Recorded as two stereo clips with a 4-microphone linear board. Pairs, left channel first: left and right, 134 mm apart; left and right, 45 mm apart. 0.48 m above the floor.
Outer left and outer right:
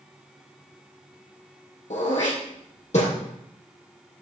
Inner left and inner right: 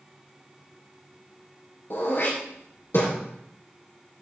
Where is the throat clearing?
60° left (ahead or behind), 3.5 m.